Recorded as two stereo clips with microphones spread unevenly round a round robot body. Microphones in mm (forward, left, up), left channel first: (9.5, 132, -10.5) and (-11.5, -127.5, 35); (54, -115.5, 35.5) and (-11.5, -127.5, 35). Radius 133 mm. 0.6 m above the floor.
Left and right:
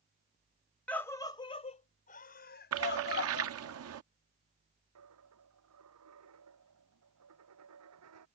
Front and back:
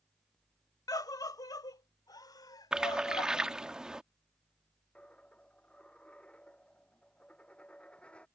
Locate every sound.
0.9 s a scream: 5° left; by 3.5 s 40° left
2.7 s a splash: 95° right
5.0 s a dropped coin: 65° right